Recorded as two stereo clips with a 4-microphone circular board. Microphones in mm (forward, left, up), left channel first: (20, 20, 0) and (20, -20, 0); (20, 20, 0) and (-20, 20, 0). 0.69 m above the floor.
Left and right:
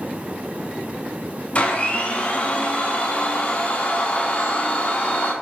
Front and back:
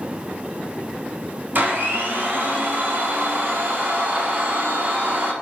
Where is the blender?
145° left, 0.8 m.